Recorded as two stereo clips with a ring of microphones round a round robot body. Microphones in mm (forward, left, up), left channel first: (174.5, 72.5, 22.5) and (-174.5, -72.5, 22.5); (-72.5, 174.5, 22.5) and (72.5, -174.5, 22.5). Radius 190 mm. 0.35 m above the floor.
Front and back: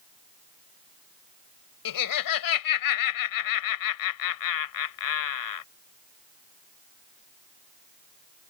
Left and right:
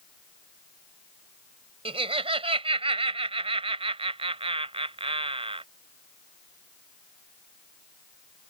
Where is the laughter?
5° left.